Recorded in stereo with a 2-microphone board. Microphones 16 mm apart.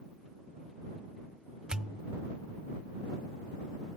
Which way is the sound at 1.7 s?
55° right (ahead or behind).